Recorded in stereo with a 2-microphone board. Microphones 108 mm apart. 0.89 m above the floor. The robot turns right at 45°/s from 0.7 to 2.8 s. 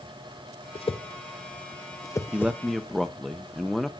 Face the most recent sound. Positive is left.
turn(degrees=0)  # may be behind; listen again after turning